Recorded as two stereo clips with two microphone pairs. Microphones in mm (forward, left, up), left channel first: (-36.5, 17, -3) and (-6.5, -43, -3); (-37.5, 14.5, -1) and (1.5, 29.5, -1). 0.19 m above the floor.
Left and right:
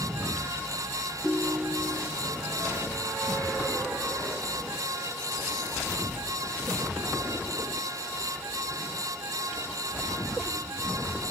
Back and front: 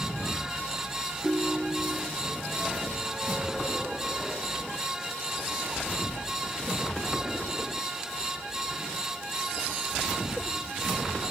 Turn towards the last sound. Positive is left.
turn(degrees=25)